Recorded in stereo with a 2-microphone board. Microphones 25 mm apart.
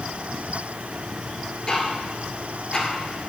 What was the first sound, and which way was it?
Ticking, 35° left (ahead or behind).